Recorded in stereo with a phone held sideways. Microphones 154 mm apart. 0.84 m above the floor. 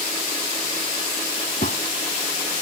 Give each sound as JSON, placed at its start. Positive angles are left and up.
{"t": 1.6, "sound": "a gunshot", "side_deg": 65}